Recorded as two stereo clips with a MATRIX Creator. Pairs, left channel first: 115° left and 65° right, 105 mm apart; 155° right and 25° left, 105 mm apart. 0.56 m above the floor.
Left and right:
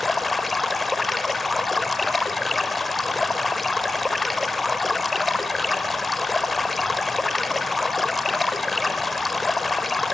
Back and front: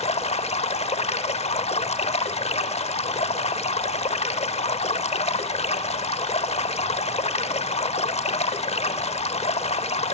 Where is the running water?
160° right, 0.9 m.